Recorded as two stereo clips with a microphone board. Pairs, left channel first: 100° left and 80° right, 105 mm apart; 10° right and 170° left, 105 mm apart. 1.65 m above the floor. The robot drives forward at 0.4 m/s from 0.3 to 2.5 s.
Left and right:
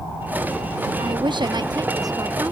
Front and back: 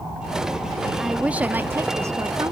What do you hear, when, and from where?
1.0 s a woman speaking: 105° right; by 2.5 s 135° right